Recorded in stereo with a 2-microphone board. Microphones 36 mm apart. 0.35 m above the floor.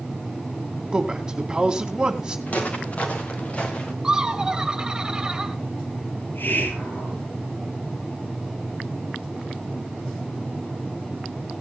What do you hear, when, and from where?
0.9 s a man speaking: 20° right (ahead or behind), 2.5 m
2.5 s footsteps: 45° left (ahead or behind), 3.5 m; by 3.9 s 40° left (ahead or behind), 2.5 m
4.0 s laughter: 20° right (ahead or behind), 2.0 m
6.2 s a hiss: 70° left (ahead or behind), 5.5 m